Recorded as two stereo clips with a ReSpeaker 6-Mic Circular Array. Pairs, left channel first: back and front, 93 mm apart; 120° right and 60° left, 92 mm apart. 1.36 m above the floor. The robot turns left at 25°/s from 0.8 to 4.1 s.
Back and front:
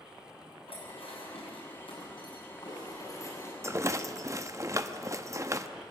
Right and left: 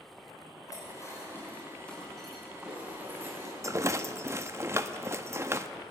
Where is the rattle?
35° left, 0.8 m; by 5.7 s 25° left, 0.8 m.